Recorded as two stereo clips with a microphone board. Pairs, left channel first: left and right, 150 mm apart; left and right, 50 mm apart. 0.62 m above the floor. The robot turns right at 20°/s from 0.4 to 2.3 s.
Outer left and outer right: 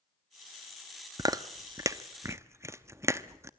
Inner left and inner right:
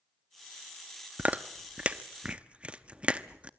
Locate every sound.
1.2 s chewing: 25° right (ahead or behind), 0.7 m; by 3.5 s 20° right (ahead or behind), 0.7 m